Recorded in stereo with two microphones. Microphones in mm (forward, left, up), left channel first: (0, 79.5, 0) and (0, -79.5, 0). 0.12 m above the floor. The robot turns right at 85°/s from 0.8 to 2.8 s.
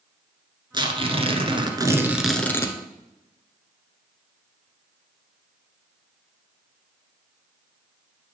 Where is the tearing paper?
125° right, 1.1 m; by 2.8 s 40° left, 1.1 m.